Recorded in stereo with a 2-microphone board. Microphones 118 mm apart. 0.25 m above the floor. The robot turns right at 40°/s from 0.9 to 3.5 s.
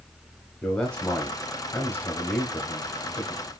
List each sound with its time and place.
0.6 s a man speaking: 10° left (ahead or behind), 1.0 m; by 3.5 s 15° left (ahead or behind), 1.0 m